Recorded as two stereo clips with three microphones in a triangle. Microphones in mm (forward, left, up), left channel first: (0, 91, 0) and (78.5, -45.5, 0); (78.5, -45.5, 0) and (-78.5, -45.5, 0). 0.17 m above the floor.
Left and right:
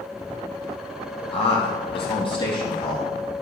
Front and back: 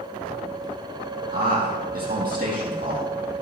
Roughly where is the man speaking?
Behind.